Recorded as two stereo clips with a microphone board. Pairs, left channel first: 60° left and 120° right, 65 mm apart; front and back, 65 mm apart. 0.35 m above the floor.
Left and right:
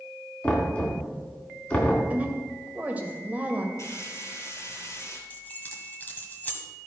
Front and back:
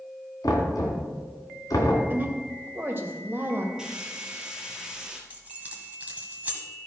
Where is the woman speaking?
165° right, 1.6 m.